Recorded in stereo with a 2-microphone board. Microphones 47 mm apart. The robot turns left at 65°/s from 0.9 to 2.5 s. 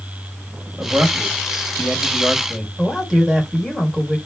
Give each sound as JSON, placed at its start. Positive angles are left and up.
{"t": 0.8, "sound": "a man speaking", "azimuth_deg": -90, "distance_m": 1.6}
{"t": 2.8, "sound": "a man speaking", "side_deg": -5, "distance_m": 2.5}